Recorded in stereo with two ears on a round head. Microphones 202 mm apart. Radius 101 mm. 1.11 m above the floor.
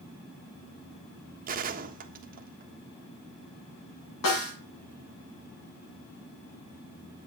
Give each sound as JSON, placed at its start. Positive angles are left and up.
{"t": 1.5, "sound": "a gunshot", "side_deg": -40, "distance_m": 1.4}
{"t": 4.2, "sound": "a snare drum", "side_deg": 80, "distance_m": 8.5}